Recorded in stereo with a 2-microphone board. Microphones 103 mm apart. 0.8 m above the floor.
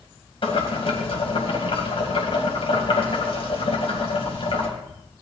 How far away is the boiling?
About 3 m.